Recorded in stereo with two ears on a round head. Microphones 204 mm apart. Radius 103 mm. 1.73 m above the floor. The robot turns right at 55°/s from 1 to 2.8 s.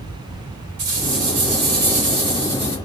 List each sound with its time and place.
0.8 s a rattle: 100° right, 2 m; by 2.8 s 5° right, 2 m